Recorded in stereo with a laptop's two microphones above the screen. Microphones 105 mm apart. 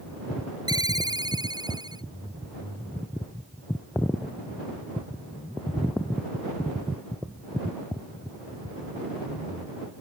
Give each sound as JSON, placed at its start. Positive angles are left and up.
{"t": 0.7, "sound": "a ringtone", "side_deg": -40}